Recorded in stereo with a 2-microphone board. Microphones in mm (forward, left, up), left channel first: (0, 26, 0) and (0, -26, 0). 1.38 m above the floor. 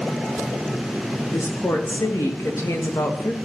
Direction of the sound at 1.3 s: 70° left (ahead or behind).